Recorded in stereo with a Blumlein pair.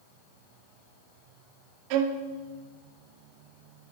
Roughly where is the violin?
Ahead right.